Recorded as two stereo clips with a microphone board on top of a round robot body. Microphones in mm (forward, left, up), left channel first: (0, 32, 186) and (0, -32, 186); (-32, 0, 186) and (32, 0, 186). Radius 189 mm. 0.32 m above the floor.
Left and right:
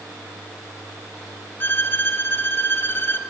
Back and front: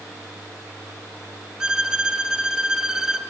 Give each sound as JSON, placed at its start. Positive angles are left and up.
{"t": 1.6, "sound": "a violin", "azimuth_deg": 75, "distance_m": 1.1}